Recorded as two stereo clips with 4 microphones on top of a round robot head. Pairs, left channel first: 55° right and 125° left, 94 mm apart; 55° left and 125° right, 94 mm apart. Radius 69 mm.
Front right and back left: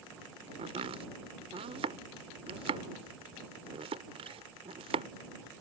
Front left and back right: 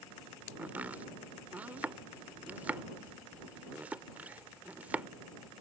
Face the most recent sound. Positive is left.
turn(degrees=155)